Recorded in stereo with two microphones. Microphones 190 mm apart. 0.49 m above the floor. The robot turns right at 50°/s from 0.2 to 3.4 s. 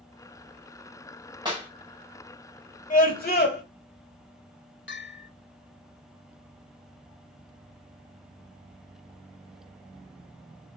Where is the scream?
45° left (ahead or behind), 1.8 m; by 3.6 s 60° left (ahead or behind), 1.8 m.